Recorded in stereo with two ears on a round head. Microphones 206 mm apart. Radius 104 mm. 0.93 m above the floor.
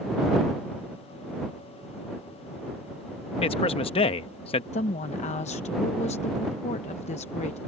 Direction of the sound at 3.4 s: 25° left (ahead or behind).